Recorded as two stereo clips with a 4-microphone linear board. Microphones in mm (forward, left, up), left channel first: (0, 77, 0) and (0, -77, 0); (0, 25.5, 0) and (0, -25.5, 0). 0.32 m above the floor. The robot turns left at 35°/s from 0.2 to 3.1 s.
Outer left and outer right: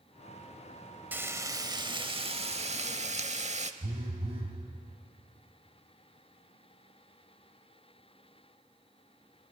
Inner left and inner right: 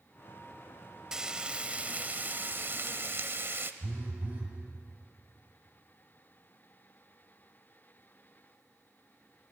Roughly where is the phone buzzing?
Right.